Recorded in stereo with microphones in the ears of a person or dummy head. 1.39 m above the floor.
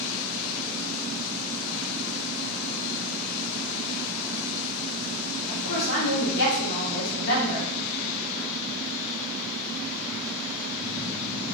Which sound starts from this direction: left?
A woman speaking, at 5.5 s.